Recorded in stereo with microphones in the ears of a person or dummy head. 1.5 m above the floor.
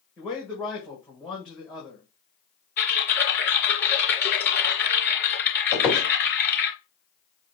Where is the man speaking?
Centre (ahead or behind), 1.3 m.